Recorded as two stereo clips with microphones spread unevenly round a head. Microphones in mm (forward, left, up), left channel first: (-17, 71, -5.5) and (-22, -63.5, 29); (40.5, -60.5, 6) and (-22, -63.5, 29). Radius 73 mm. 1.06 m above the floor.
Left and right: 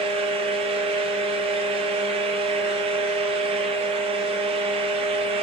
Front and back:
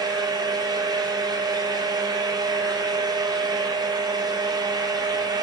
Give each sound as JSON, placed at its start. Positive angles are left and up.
{"t": 0.0, "sound": "a fan", "azimuth_deg": -150, "distance_m": 1.3}